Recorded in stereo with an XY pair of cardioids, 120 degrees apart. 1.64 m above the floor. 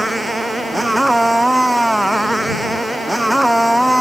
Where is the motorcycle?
5° right; by 4.0 s straight ahead.